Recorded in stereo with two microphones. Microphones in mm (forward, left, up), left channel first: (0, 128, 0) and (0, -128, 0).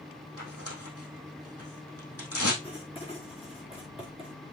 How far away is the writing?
About 5 m.